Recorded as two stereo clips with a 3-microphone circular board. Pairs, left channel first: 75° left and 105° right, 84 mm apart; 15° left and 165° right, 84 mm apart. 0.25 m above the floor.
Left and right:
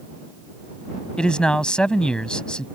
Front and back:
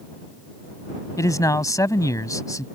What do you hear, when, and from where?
1.2 s a man speaking: straight ahead